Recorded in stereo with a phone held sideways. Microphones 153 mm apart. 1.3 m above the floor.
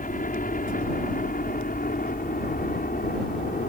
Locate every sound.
0.0 s a helicopter: 60° left (ahead or behind); by 3.7 s 70° left (ahead or behind)